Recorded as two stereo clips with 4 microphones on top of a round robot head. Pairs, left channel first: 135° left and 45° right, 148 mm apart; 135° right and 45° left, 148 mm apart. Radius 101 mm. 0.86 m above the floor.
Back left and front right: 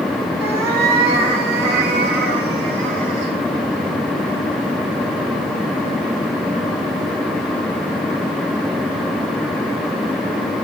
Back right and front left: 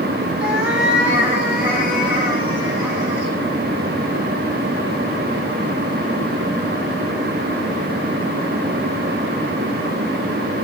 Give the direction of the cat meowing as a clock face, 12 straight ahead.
1 o'clock.